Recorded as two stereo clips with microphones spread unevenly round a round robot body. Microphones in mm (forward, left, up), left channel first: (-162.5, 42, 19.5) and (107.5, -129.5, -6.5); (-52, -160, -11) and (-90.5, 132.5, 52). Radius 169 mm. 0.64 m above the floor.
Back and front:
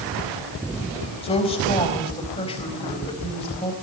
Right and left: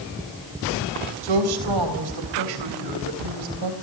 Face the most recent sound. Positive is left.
turn(degrees=75)